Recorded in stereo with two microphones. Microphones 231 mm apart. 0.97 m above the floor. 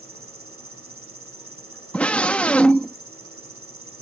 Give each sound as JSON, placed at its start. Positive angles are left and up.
{"t": 0.0, "sound": "an insect", "side_deg": -75}
{"t": 1.9, "sound": "a scream", "side_deg": 5}